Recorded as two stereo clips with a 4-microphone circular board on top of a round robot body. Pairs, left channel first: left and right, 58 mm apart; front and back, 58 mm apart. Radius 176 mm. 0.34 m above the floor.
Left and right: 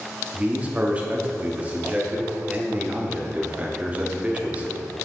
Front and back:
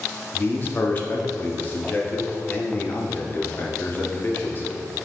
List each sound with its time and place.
0.3 s a man speaking: 35° right, 1.1 m